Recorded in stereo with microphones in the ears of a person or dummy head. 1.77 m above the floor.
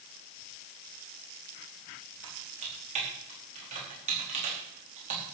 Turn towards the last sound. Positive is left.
turn(degrees=-40)  # may be behind; listen again after turning